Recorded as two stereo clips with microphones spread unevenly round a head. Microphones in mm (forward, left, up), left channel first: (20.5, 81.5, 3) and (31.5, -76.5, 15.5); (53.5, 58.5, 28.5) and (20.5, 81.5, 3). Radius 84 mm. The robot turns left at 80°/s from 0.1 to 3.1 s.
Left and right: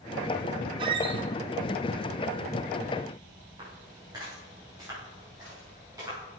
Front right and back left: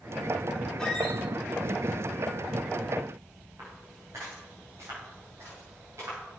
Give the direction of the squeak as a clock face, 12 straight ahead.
1 o'clock.